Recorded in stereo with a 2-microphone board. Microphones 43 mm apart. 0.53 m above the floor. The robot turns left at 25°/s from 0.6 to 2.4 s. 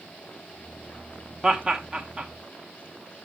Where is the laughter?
20° right (ahead or behind), 1.0 m.